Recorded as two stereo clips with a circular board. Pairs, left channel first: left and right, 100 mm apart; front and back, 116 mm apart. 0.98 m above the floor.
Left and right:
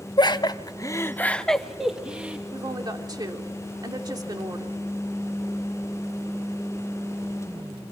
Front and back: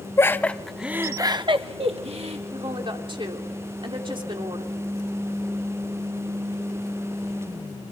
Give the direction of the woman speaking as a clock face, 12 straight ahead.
5 o'clock.